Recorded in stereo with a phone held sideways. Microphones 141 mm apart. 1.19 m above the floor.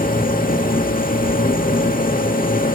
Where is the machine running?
85° left, 2 m.